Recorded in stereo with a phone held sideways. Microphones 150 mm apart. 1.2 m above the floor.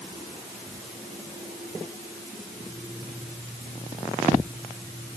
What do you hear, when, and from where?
Only background noise.